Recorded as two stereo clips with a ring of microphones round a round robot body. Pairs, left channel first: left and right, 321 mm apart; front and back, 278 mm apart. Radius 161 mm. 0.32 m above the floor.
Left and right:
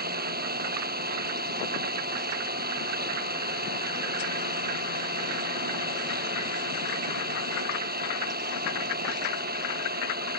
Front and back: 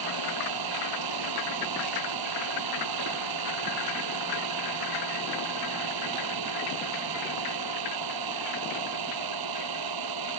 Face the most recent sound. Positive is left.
turn(degrees=-155)